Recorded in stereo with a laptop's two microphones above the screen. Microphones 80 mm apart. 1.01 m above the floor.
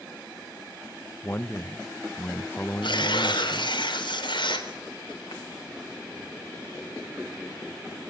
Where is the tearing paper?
80° left, 3.5 m.